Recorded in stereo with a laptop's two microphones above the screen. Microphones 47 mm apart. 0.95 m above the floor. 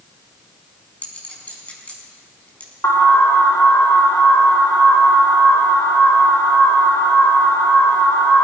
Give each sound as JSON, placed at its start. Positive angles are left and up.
{"t": 1.0, "sound": "a clink", "side_deg": 25, "distance_m": 4.0}
{"t": 2.8, "sound": "an alarm", "side_deg": 70, "distance_m": 1.4}